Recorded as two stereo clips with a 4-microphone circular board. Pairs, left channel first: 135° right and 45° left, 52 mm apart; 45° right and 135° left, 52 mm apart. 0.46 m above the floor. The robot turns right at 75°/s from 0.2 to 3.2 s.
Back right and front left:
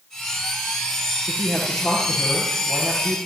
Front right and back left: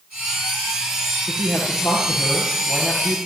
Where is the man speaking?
75° right, 8 m; by 3.2 s 65° left, 8 m.